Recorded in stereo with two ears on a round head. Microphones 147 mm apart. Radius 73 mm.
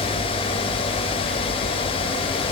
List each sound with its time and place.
Only background noise.